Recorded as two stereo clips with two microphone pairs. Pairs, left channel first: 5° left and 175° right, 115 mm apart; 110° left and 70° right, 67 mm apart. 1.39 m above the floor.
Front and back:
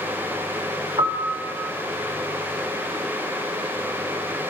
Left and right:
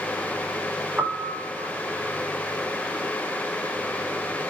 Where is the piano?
140° right, 0.7 m.